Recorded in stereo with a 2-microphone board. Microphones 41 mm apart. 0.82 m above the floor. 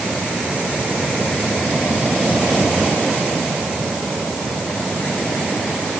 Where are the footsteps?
I don't hear footsteps.